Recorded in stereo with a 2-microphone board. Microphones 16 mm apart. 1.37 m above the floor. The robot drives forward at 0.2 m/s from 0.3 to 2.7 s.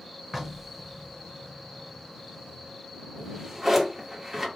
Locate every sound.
0.3 s knocking: 20° right (ahead or behind), 0.7 m; by 1.2 s 25° right (ahead or behind), 0.6 m
3.2 s a drawer: 30° right (ahead or behind), 1.3 m